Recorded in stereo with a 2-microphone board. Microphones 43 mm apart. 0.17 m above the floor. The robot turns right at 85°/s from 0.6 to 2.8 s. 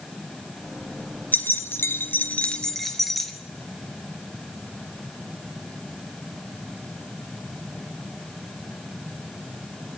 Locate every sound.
1.3 s keys jangling: 50° left, 1.6 m; by 3.3 s straight behind, 1.6 m